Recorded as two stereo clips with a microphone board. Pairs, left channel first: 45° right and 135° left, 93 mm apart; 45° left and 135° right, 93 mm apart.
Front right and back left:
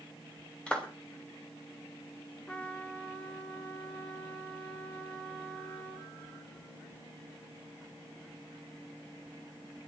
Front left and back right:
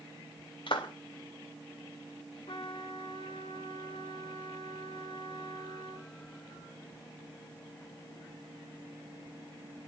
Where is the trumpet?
30° left, 1.8 m.